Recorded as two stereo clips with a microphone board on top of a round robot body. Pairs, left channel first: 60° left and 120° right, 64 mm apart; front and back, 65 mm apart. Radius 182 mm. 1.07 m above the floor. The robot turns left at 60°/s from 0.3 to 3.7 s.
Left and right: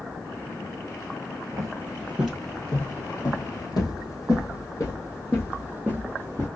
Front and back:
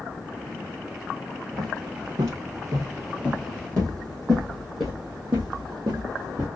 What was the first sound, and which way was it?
Footsteps, 160° right.